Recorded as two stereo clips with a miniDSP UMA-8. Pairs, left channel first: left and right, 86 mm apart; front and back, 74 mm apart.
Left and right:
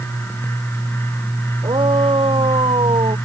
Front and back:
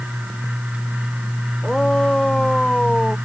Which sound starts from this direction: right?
A shout, at 1.6 s.